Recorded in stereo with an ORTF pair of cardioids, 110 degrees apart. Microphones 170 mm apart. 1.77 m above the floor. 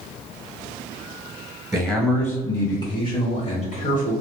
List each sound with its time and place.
1.7 s a man speaking: 5° right, 1.5 m; by 4.1 s 60° left, 1.8 m